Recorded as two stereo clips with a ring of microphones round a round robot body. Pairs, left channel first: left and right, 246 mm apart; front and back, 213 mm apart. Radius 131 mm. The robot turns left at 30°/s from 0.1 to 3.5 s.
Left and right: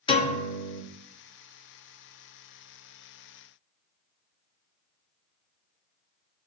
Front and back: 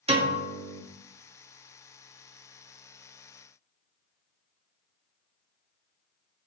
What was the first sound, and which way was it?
A piano, 145° left.